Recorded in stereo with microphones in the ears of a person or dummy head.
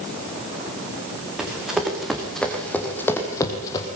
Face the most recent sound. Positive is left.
turn(degrees=20)  # may be behind; listen again after turning